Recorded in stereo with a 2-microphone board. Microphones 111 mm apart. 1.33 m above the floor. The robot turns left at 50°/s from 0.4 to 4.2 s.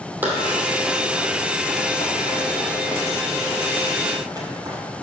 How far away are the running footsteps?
About 3 m.